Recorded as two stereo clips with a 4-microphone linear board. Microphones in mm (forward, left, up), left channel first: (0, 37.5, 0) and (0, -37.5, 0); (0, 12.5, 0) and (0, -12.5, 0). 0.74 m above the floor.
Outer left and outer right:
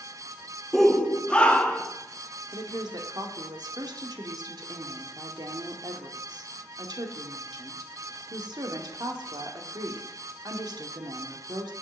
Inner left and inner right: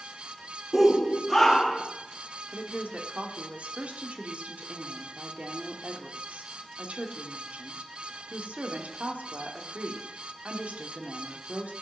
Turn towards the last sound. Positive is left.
turn(degrees=-65)  # may be behind; listen again after turning